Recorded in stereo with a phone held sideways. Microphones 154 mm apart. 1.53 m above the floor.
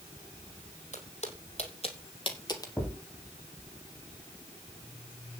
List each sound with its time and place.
0.9 s footsteps: 50° left (ahead or behind), 4.5 m; by 2.7 s 25° left (ahead or behind), 2.5 m
2.8 s a thud: 10° left (ahead or behind), 3.5 m